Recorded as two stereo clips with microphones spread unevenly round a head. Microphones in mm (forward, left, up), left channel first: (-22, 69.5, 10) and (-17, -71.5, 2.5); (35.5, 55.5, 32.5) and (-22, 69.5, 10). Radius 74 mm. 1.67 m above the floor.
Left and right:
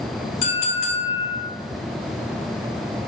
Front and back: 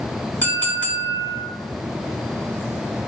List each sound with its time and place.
0.4 s a clink: 45° left, 4 m